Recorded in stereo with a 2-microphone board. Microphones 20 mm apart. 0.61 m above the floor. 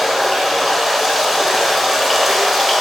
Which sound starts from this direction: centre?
Running water, at 0.0 s.